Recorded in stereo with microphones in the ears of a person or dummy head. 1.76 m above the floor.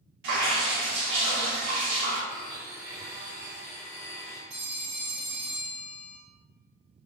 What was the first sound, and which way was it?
Dripping, 55° right (ahead or behind).